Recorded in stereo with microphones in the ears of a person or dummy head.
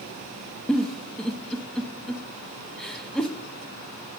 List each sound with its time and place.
0.7 s a giggle: 10° left (ahead or behind), 0.8 m